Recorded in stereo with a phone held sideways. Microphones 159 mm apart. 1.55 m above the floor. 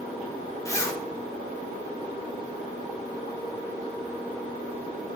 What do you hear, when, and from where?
0.7 s a zipper: 20° left (ahead or behind), 1.1 m